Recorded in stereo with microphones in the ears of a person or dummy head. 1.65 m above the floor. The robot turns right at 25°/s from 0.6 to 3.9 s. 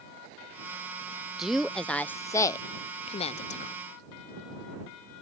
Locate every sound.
1.4 s a woman speaking: 5° right (ahead or behind); by 3.8 s 50° left (ahead or behind)